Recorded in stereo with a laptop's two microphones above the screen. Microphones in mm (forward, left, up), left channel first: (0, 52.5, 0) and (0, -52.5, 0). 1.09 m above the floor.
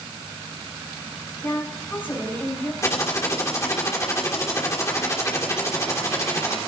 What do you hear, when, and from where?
1.4 s a woman speaking: 20° left (ahead or behind), 5 m
2.8 s typing on a keyboard: 30° left (ahead or behind), 2 m